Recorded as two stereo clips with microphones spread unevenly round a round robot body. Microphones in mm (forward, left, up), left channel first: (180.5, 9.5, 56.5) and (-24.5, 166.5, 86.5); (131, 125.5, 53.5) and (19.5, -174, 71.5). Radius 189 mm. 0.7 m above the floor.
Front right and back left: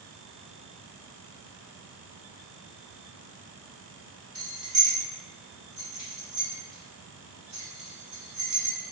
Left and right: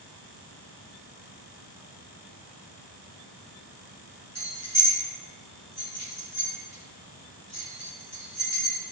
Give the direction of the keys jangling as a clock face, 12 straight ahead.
6 o'clock.